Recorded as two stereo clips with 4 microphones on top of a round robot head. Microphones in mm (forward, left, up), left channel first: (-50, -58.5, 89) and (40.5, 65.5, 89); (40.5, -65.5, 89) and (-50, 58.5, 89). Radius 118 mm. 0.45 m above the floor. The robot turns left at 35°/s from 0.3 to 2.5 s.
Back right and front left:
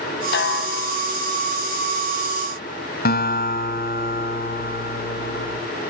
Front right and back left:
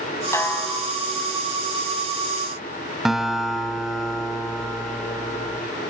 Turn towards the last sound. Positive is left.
turn(degrees=-145)